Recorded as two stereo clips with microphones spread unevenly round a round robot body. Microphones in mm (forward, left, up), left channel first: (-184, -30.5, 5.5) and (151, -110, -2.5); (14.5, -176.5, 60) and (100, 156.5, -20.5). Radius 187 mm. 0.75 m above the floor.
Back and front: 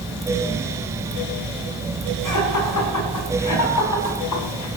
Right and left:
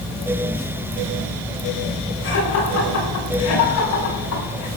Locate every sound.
2.2 s laughter: 160° right, 8 m; by 4.7 s 155° right, 6 m